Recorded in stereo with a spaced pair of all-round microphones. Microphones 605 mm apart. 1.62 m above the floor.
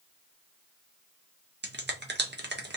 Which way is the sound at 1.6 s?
20° right (ahead or behind).